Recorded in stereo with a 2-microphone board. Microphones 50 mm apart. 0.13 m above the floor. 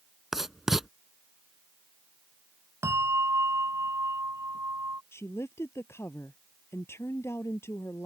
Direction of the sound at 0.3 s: 10° right (ahead or behind).